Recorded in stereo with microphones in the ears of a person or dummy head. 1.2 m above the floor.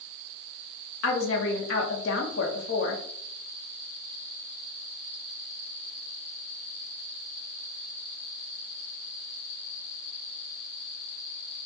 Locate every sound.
1.0 s a woman speaking: 70° left (ahead or behind), 0.8 m